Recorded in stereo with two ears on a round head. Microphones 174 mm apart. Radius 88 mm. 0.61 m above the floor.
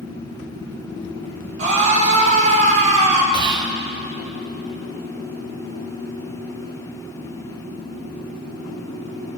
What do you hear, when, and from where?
1.6 s a scream: 40° right (ahead or behind), 3.5 m
3.3 s whispering: 25° right (ahead or behind), 0.6 m